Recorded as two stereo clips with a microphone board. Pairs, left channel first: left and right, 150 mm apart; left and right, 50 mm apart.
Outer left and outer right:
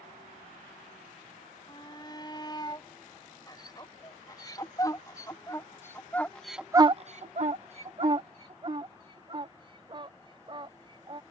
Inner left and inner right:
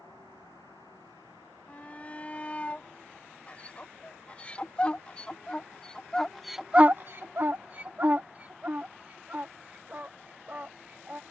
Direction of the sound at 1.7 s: 30° left (ahead or behind).